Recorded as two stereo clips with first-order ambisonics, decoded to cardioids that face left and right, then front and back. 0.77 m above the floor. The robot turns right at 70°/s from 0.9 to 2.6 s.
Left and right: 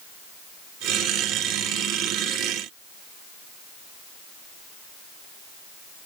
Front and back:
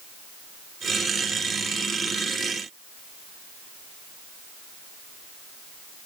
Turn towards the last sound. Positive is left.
No sound to turn to.